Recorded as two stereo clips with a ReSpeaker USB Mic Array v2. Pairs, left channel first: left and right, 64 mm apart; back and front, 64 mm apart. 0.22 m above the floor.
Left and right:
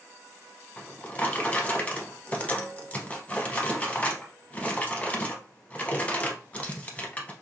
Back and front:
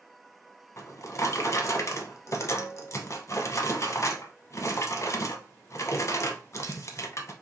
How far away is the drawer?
About 0.6 m.